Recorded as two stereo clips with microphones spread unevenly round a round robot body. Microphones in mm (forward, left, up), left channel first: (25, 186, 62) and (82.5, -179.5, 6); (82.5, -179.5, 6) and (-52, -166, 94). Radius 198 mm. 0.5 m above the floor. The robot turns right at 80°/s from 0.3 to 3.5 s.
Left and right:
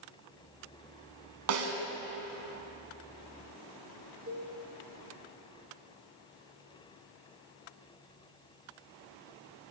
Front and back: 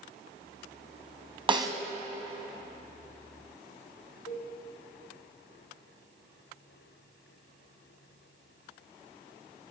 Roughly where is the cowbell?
Ahead.